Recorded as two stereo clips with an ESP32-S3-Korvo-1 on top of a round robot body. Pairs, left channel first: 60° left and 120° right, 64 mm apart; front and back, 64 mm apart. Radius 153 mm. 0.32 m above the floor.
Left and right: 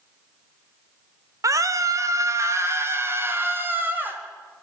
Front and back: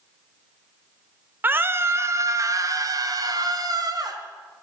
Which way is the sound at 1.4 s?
125° right.